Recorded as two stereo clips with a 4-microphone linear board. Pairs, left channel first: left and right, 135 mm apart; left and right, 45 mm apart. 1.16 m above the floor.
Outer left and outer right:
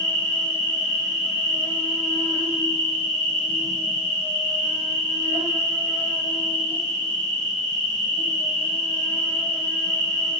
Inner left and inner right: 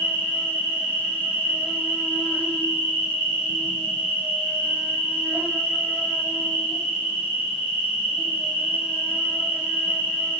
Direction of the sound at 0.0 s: 40° right (ahead or behind).